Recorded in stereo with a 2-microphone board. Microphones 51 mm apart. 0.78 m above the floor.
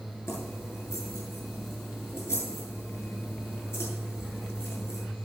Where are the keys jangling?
70° left (ahead or behind), 7 m.